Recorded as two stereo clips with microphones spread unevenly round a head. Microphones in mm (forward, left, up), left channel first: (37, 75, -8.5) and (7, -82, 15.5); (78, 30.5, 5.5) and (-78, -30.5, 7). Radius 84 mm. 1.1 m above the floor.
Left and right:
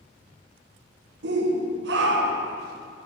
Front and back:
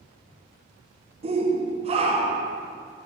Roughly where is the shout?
Right.